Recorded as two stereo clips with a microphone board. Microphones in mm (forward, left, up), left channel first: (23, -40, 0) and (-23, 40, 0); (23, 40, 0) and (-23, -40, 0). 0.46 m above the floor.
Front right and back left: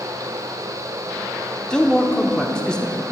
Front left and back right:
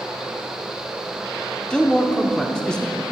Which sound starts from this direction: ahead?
A man speaking, at 1.7 s.